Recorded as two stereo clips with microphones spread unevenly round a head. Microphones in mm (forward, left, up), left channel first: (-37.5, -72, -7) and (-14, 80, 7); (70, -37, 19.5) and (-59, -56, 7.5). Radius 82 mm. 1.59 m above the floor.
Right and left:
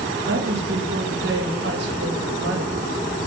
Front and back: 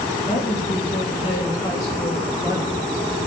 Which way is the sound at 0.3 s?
65° left.